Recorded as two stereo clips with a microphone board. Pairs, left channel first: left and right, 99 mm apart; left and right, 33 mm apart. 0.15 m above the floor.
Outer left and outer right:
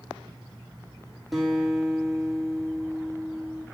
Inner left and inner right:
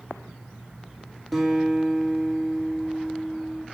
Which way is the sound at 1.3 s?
Centre (ahead or behind).